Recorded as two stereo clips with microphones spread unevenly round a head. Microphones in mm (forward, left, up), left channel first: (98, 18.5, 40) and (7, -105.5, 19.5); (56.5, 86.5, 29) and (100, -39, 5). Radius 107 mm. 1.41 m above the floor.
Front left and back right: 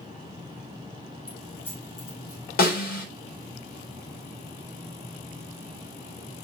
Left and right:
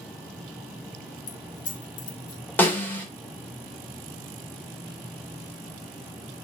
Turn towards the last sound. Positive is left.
turn(degrees=35)